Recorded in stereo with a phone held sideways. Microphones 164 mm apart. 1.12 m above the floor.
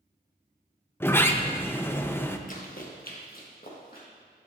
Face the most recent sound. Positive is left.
turn(degrees=55)  # may be behind; listen again after turning